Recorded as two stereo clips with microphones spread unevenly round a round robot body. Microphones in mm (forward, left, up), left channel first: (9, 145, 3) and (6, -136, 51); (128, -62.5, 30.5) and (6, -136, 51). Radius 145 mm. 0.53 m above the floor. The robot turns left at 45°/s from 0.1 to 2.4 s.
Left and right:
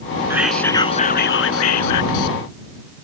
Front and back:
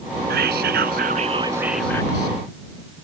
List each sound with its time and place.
0.3 s whispering: 170° right; by 2.4 s 95° left